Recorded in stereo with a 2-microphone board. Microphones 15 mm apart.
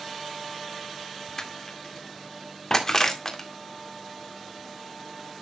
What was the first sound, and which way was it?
Crushing, 30° left (ahead or behind).